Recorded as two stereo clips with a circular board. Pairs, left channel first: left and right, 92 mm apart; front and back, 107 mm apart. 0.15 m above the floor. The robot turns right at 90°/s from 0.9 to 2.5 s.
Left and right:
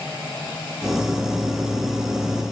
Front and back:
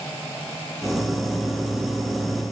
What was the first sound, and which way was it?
Only background noise.